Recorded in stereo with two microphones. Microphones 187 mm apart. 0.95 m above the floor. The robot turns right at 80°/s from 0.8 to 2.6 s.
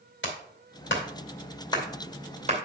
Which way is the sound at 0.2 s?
85° left.